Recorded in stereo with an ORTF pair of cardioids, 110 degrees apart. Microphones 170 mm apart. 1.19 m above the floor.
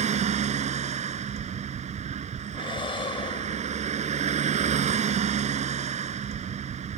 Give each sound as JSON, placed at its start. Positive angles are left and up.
{"t": 0.0, "sound": "a vehicle", "azimuth_deg": -45}
{"t": 2.5, "sound": "breathing", "azimuth_deg": 30}